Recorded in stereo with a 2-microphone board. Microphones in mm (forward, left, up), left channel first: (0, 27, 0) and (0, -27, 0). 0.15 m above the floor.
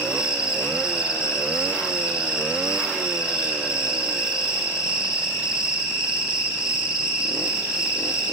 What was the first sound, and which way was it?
An insect, 15° right (ahead or behind).